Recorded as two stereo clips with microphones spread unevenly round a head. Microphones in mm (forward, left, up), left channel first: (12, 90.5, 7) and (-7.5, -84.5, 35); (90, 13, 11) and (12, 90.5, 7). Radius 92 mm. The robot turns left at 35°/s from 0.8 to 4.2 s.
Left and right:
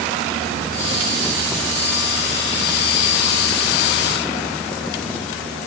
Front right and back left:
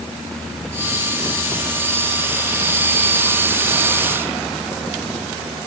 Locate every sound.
Only background noise.